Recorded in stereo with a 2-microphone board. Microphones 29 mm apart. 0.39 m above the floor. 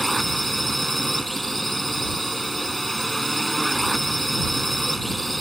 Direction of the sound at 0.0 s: Centre (ahead or behind).